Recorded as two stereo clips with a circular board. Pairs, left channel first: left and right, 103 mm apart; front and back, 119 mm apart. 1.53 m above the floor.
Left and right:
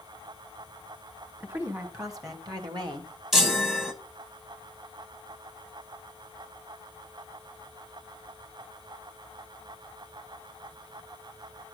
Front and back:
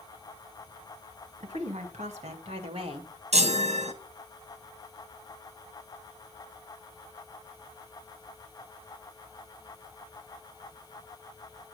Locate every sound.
1.4 s a woman speaking: 155° right, 2.5 m; by 3.1 s 130° right, 1.7 m
3.3 s a chime: 175° right, 1.1 m